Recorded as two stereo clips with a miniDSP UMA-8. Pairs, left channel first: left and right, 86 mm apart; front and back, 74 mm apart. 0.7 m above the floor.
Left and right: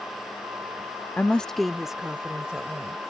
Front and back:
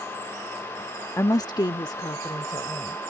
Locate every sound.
1.2 s a woman speaking: 30° left; by 3.0 s 15° right